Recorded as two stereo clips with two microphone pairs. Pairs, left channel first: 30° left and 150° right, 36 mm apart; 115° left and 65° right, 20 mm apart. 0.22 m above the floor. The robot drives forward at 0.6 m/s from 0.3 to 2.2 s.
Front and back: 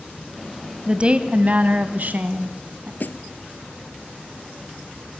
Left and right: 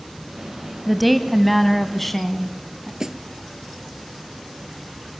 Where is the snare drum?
10° right, 1.2 m.